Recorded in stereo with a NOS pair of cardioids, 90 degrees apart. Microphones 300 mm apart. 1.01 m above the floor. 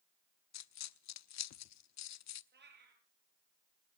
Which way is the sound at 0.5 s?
65° left.